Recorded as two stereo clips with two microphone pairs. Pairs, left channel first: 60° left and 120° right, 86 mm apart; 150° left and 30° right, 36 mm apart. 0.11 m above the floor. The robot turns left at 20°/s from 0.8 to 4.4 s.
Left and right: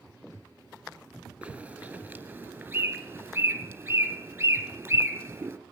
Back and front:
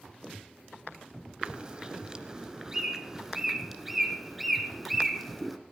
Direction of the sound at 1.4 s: 60° right.